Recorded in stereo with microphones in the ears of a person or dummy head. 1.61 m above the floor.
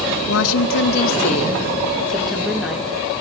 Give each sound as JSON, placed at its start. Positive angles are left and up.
{"t": 0.3, "sound": "a woman speaking", "side_deg": 85, "distance_m": 1.7}